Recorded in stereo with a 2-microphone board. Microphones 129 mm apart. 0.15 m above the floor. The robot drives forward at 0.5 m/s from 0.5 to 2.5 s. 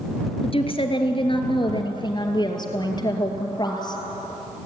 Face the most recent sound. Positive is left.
turn(degrees=35)  # may be behind; listen again after turning